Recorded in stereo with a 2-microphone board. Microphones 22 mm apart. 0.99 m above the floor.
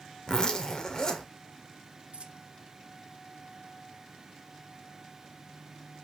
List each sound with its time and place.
0.3 s a zipper: 35° left (ahead or behind), 1.5 m
2.1 s a dropped coin: 50° right (ahead or behind), 1.1 m